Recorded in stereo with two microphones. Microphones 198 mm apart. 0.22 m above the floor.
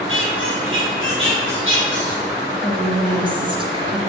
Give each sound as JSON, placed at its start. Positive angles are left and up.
{"t": 0.1, "sound": "a squeak", "side_deg": -85, "distance_m": 5.0}
{"t": 2.6, "sound": "a woman speaking", "side_deg": -25, "distance_m": 3.0}